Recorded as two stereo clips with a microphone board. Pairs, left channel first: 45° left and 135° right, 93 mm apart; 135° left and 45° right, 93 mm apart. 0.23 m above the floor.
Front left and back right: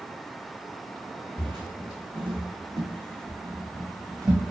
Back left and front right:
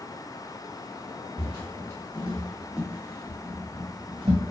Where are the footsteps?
165° right, 1.2 m; by 4.4 s 75° right, 1.2 m.